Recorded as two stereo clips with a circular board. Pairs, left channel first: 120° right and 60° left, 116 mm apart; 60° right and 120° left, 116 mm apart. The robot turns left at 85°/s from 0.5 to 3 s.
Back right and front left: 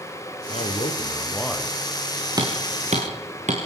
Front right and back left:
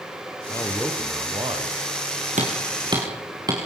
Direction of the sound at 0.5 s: 115° right.